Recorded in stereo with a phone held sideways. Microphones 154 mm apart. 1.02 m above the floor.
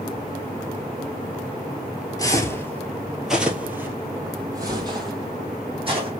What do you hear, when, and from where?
2.2 s footsteps: 25° left (ahead or behind), 1.1 m; by 6.1 s 35° right (ahead or behind), 2.5 m